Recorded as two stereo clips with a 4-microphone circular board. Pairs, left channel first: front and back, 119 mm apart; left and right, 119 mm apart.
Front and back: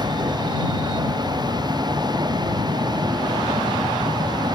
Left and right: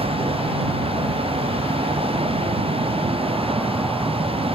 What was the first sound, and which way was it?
A vehicle, 125° right.